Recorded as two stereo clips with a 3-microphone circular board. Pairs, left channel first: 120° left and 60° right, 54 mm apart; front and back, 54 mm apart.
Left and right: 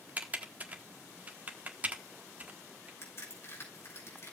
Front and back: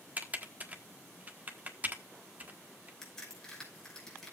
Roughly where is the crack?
Left.